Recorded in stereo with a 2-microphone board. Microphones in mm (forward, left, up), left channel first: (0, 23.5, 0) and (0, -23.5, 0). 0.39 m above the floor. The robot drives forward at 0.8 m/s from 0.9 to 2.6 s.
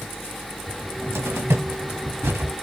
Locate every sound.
0.7 s a cupboard door: 60° right (ahead or behind), 1.7 m; by 2.5 s 65° right (ahead or behind), 1.6 m